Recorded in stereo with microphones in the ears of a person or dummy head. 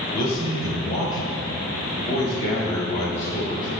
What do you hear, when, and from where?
0.1 s a man speaking: 20° left (ahead or behind), 3 m; by 3.7 s 30° left (ahead or behind), 6.5 m